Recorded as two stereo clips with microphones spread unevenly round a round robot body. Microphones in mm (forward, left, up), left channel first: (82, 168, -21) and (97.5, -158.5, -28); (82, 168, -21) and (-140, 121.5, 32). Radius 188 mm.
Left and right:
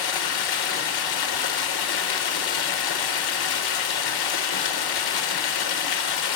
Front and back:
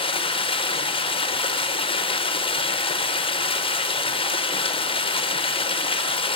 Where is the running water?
80° left, 1.0 m.